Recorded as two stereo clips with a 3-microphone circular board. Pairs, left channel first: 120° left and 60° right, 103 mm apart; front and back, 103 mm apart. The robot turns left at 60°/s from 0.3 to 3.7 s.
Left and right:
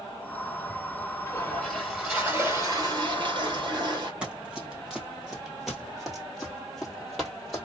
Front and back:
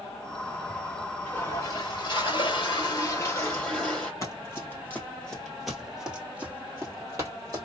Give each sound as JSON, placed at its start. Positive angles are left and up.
{"t": 1.3, "sound": "a toilet flushing", "azimuth_deg": 65, "distance_m": 1.8}
{"t": 4.2, "sound": "running footsteps", "azimuth_deg": 5, "distance_m": 1.6}